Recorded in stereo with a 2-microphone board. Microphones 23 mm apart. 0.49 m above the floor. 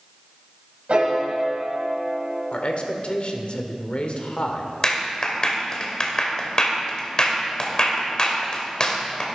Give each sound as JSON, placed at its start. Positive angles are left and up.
{"t": 0.9, "sound": "a piano", "side_deg": -60, "distance_m": 3.5}
{"t": 2.5, "sound": "a man speaking", "side_deg": 50, "distance_m": 1.4}
{"t": 4.8, "sound": "a clap", "side_deg": 35, "distance_m": 1.7}